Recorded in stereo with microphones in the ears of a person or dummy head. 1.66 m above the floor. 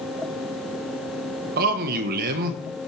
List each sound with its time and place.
1.6 s a man speaking: 55° right (ahead or behind), 1.4 m